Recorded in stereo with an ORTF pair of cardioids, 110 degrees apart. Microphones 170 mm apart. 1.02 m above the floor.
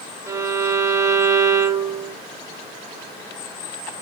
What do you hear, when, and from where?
0.3 s a violin: 15° right, 1.3 m